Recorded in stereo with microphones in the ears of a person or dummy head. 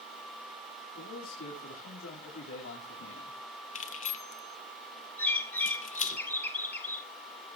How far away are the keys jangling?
About 0.6 m.